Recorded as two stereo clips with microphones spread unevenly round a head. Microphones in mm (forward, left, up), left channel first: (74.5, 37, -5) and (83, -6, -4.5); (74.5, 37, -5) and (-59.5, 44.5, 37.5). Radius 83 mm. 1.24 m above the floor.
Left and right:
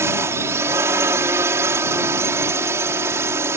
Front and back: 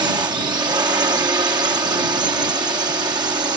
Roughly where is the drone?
Right.